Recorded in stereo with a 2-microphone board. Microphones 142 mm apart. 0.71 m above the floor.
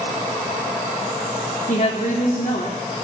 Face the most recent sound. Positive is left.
turn(degrees=65)  # may be behind; listen again after turning